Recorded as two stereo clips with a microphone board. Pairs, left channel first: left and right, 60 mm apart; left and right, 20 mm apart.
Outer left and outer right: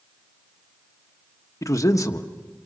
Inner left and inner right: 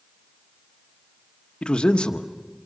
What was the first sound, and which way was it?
A man speaking, 60° left (ahead or behind).